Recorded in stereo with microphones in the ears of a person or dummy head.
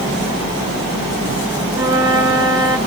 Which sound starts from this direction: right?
A flute, at 1.7 s.